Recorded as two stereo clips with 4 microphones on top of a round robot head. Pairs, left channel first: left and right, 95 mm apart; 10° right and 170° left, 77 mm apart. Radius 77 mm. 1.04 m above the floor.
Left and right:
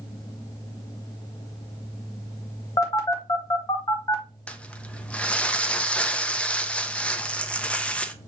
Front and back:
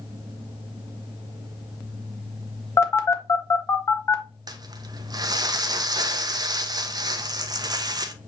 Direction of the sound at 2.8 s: 40° left.